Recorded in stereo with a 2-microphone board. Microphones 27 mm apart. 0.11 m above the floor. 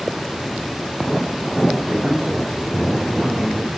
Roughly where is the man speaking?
Right.